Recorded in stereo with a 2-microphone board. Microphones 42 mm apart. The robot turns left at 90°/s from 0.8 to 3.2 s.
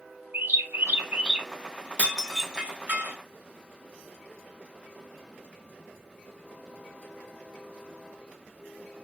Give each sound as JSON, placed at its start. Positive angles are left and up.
{"t": 0.3, "sound": "a bird", "azimuth_deg": -130, "distance_m": 1.2}
{"t": 2.0, "sound": "dishes clattering", "side_deg": 30, "distance_m": 1.1}